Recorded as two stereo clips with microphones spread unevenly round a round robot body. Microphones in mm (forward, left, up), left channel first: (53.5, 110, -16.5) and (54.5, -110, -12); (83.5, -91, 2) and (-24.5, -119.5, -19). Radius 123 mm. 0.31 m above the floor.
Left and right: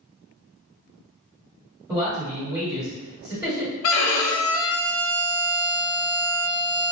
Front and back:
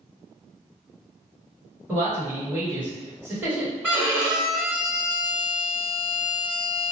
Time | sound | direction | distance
1.9 | a man speaking | 150° right | 1.4 m
3.8 | a violin | 100° left | 0.5 m